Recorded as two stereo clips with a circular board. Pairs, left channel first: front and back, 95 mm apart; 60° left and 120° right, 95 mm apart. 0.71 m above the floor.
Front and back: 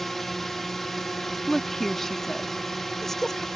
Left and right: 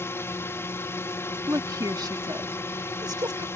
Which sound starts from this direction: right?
A woman speaking, at 1.5 s.